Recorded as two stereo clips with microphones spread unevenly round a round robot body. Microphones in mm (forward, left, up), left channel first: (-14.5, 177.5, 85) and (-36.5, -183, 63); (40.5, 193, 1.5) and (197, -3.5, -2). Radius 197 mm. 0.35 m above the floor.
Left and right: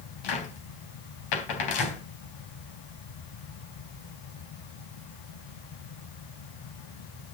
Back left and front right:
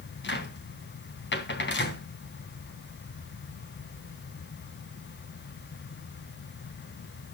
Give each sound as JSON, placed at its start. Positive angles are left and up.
{"t": 0.2, "sound": "a cupboard door", "azimuth_deg": 85, "distance_m": 3.5}